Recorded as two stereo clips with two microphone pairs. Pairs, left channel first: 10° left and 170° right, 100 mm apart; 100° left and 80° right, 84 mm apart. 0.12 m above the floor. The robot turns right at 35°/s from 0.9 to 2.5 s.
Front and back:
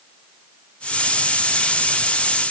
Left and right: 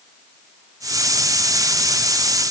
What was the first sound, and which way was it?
Only background noise.